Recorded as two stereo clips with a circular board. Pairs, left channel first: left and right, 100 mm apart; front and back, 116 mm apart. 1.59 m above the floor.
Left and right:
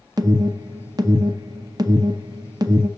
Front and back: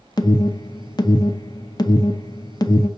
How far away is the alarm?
About 0.5 m.